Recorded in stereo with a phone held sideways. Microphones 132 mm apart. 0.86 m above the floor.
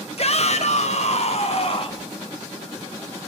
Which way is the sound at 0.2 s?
50° left (ahead or behind).